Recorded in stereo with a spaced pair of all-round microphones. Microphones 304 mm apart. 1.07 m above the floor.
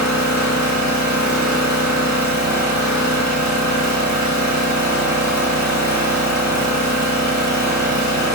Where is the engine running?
65° left (ahead or behind), 0.8 m.